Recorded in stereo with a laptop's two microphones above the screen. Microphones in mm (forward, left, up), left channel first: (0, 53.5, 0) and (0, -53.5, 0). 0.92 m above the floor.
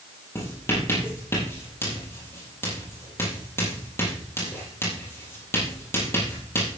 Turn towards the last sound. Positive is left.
turn(degrees=25)  # may be behind; listen again after turning